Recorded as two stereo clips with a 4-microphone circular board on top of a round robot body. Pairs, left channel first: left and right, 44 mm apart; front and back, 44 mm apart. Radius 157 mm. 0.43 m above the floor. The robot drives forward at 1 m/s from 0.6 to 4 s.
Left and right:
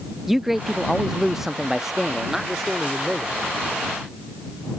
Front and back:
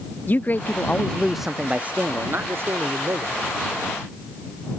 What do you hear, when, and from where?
0.3 s a man speaking: 10° right; by 3.4 s 175° right